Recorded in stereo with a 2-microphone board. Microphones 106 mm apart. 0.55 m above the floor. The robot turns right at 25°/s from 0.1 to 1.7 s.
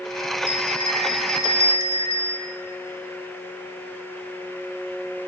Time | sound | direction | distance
0.5 | a bell | 65° right | 0.7 m